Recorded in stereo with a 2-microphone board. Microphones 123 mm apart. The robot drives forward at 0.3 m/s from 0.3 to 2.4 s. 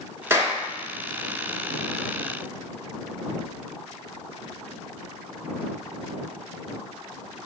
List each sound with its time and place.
0.3 s a clap: 20° right (ahead or behind), 1.3 m